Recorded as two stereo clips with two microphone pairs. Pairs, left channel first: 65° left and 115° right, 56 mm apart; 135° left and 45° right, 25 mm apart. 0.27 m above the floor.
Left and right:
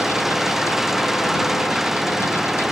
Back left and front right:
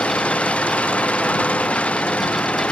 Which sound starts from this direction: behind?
An engine running, at 0.0 s.